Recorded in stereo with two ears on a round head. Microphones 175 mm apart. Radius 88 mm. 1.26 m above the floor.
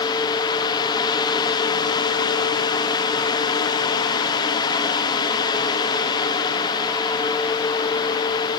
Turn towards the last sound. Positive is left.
No sound to turn to.